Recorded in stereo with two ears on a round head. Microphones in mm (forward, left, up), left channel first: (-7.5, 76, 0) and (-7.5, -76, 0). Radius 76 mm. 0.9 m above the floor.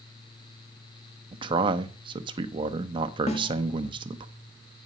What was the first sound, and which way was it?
A man speaking, 30° right (ahead or behind).